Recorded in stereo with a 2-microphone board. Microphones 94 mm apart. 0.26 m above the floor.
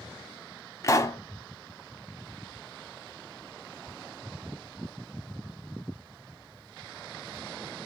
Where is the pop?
35° left (ahead or behind), 0.6 m.